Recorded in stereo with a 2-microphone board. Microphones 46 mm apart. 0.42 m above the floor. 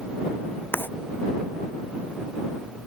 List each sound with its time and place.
0.7 s writing: 45° left (ahead or behind)